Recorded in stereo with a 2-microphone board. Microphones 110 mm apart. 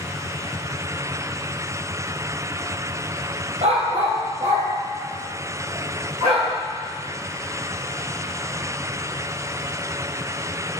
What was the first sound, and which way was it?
A dog barking, 70° right (ahead or behind).